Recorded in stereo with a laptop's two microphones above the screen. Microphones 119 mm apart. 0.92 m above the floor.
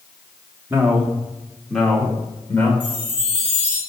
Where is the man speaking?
20° right (ahead or behind), 1.3 m; by 2.7 s 15° left (ahead or behind), 2.5 m.